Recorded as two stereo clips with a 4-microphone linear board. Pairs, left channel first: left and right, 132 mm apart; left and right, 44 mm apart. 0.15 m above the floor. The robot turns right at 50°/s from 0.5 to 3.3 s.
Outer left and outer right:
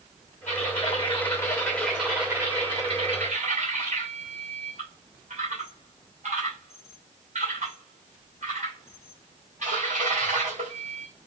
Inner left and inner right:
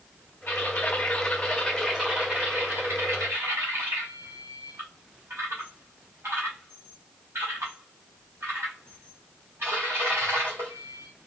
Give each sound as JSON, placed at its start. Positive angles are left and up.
{"t": 0.5, "sound": "typing on a keyboard", "azimuth_deg": 110, "distance_m": 3.0}